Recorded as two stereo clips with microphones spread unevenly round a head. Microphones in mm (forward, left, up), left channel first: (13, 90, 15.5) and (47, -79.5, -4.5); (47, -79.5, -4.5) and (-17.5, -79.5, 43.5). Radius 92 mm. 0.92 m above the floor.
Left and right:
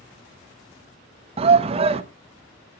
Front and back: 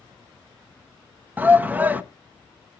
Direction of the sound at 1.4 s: 70° right.